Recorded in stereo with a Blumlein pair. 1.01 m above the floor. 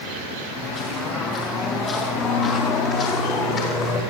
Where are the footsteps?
30° left, 6 m; by 4.0 s 25° left, 10 m.